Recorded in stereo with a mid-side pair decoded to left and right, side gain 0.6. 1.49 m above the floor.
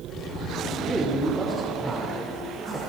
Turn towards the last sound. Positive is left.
turn(degrees=-5)